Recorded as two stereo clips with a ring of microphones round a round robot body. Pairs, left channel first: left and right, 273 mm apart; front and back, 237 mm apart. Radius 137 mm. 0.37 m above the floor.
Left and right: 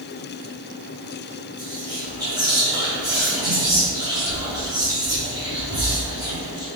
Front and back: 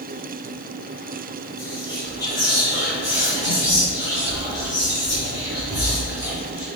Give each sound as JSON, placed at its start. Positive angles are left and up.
{"t": 1.6, "sound": "whispering", "azimuth_deg": -135, "distance_m": 1.1}